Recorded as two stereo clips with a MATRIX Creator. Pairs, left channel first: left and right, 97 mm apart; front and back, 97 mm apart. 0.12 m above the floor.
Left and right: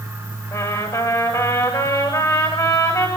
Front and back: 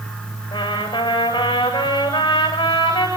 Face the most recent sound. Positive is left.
turn(degrees=40)